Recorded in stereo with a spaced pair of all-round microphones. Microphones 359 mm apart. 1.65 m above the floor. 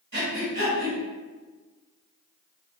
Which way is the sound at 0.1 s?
35° right (ahead or behind).